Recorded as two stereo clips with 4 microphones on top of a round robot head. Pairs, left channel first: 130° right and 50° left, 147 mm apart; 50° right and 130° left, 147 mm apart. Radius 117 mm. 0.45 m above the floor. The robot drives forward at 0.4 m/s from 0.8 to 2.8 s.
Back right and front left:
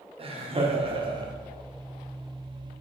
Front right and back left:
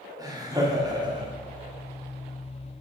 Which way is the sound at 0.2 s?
75° left.